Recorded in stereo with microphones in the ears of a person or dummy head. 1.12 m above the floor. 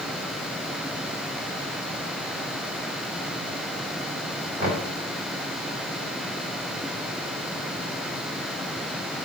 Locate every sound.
4.6 s knocking: 40° right (ahead or behind), 2.5 m